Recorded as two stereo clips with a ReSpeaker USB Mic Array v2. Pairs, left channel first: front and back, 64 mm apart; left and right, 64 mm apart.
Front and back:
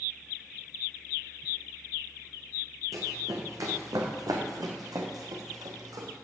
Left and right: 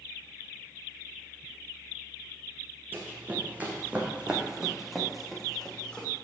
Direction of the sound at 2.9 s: 150° right.